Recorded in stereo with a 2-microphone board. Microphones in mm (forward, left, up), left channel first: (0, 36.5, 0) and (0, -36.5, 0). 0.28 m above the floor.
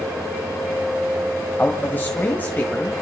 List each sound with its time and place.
1.6 s a man speaking: 30° left (ahead or behind), 1.9 m